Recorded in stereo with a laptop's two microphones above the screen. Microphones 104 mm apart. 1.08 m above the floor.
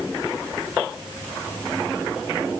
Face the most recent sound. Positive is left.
No sound to turn to.